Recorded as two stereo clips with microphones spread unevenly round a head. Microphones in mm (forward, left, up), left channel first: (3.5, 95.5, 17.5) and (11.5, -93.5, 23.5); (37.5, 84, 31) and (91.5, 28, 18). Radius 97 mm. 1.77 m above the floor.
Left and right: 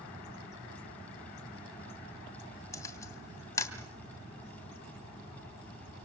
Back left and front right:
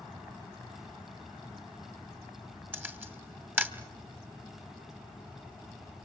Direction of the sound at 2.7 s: 20° left.